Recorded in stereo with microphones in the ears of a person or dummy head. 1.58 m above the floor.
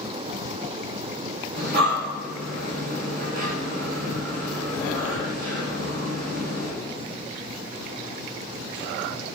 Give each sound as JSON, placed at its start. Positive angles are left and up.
{"t": 1.6, "sound": "breathing", "side_deg": -50, "distance_m": 2.5}